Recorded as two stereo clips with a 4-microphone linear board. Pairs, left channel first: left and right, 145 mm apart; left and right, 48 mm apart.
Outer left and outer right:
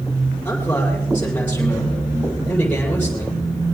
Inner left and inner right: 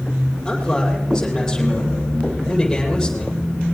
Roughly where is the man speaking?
Centre.